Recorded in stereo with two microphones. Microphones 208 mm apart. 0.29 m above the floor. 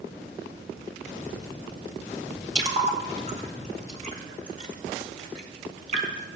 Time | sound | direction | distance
2.5 | a splash | 35° right (ahead or behind) | 1.6 m